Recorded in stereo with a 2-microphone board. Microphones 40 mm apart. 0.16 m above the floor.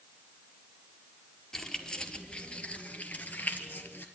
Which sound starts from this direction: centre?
Keys jangling, at 1.5 s.